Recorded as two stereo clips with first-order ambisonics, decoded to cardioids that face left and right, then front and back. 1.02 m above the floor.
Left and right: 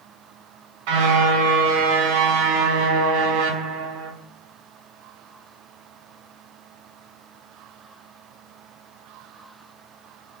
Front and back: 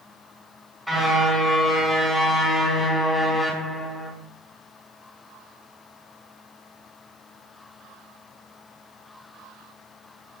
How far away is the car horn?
About 5.5 m.